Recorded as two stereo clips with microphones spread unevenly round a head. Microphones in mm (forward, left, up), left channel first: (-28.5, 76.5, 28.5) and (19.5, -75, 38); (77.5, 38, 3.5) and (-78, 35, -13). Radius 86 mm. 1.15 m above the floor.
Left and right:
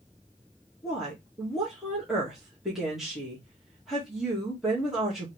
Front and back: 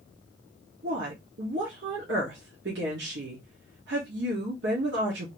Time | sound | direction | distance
0.8 | a woman speaking | 160° right | 1.5 m